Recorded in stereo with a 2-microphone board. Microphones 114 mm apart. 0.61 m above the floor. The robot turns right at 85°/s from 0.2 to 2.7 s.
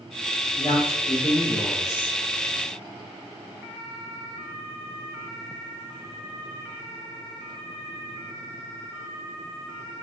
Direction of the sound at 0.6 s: 75° left.